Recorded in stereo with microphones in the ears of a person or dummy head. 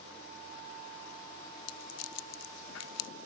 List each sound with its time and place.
1.7 s a rattle: 75° left (ahead or behind), 0.5 m